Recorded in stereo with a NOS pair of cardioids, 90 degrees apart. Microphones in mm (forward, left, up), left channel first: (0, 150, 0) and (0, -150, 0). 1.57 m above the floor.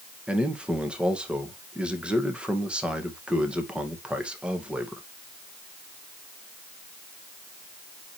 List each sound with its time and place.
0.3 s a man speaking: 5° right, 2 m